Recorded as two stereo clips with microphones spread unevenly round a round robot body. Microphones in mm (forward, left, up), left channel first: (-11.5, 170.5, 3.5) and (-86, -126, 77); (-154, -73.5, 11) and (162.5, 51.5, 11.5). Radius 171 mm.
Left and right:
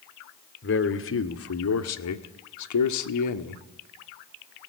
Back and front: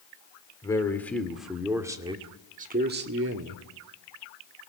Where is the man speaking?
120° left, 2 m; by 3.7 s 70° left, 1.7 m.